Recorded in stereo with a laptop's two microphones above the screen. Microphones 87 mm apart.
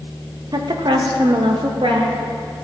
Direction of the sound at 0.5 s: 50° right (ahead or behind).